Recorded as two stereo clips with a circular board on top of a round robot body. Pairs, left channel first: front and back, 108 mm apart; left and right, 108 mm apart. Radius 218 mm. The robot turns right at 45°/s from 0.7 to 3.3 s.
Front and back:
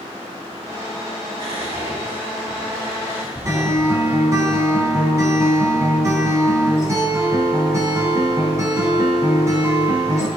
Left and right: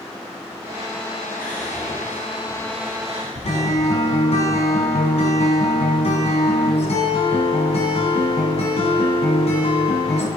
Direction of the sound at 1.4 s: 165° left.